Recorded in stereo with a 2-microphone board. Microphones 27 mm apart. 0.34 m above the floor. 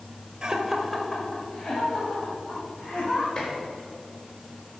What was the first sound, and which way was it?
Laughter, 30° right (ahead or behind).